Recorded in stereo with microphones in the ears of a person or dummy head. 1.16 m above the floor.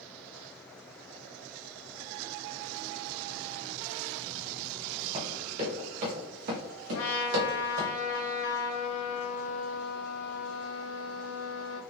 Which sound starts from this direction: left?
A trumpet, at 6.9 s.